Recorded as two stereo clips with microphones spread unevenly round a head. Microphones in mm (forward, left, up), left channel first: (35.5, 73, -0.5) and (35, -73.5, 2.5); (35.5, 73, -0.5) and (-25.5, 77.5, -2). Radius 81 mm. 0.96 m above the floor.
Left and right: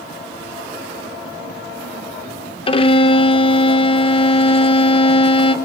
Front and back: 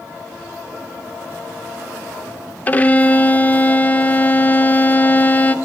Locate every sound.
2.7 s a violin: 55° left, 0.5 m